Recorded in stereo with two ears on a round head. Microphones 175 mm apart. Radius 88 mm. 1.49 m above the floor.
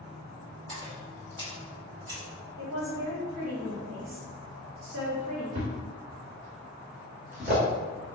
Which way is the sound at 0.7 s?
25° right (ahead or behind).